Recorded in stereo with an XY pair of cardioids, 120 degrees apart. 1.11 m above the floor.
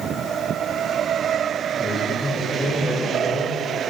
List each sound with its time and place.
1.8 s a man speaking: 5° left, 1.4 m